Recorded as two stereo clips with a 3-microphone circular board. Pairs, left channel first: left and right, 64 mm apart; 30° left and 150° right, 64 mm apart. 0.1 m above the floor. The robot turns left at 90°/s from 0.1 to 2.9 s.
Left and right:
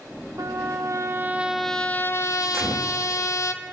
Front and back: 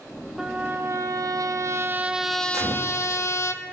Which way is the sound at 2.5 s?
130° right.